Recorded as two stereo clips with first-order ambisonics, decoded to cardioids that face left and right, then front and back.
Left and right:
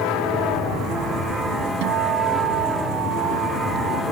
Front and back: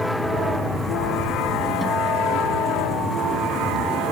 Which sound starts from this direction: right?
A guitar, at 1.8 s.